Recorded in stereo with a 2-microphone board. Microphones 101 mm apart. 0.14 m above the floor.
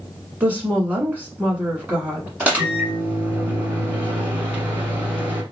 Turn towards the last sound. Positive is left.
turn(degrees=-15)  # may be behind; listen again after turning